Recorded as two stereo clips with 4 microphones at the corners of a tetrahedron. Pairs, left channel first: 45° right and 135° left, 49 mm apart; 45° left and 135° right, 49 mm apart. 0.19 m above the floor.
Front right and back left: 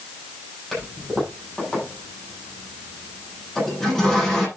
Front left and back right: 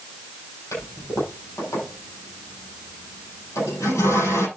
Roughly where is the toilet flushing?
Ahead left.